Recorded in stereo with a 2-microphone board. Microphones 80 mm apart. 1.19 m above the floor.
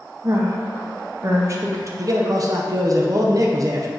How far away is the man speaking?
About 0.6 m.